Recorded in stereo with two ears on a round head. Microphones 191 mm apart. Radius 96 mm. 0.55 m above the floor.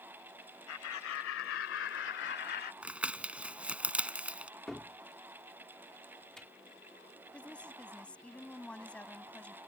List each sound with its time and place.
0.7 s laughter: 75° left (ahead or behind); by 2.7 s 45° left (ahead or behind)
2.8 s crumpling: 5° right (ahead or behind)
4.7 s a cupboard door: centre (ahead or behind)
7.3 s a woman speaking: 5° left (ahead or behind)